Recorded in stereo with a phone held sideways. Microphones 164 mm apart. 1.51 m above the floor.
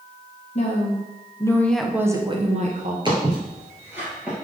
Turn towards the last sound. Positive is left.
turn(degrees=-5)  # may be behind; listen again after turning